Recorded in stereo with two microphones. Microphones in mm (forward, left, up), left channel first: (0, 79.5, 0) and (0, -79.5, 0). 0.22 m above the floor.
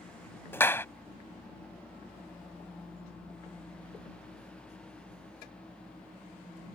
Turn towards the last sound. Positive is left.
turn(degrees=15)  # may be behind; listen again after turning